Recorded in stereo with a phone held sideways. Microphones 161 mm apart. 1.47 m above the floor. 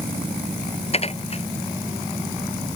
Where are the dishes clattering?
40° left (ahead or behind).